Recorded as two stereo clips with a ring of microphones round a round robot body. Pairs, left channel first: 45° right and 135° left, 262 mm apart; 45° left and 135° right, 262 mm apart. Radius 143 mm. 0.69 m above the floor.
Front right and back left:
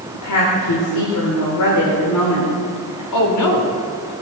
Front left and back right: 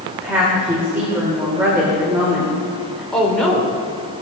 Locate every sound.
0.1 s a woman speaking: 50° right, 2 m
3.1 s a woman speaking: 40° right, 2.5 m